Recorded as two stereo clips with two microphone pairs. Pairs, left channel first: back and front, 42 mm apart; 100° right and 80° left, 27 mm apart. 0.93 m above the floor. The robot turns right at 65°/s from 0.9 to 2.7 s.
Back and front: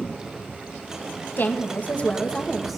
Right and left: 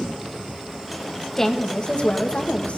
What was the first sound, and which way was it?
A woman speaking, 170° right.